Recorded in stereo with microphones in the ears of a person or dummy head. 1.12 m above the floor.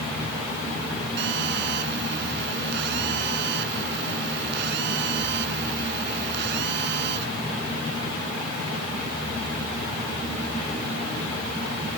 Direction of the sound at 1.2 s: 70° right (ahead or behind).